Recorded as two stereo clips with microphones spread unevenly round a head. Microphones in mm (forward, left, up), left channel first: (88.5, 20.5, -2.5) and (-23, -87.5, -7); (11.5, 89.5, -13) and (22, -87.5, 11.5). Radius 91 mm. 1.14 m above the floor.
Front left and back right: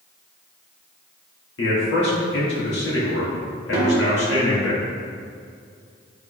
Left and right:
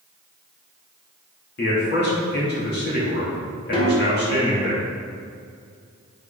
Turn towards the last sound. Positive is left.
turn(degrees=150)